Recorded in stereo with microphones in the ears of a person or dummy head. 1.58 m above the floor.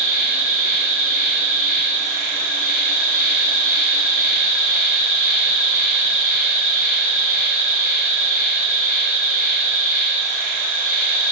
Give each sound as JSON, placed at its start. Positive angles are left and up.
{"t": 0.0, "sound": "an insect", "side_deg": -45, "distance_m": 0.9}